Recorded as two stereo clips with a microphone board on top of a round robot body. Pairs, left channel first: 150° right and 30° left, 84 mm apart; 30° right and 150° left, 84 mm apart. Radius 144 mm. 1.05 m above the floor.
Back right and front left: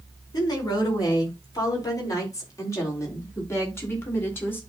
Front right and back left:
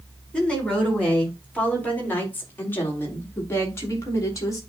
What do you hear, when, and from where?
0.3 s a woman speaking: 110° right, 4.5 m; by 4.6 s 85° right, 3 m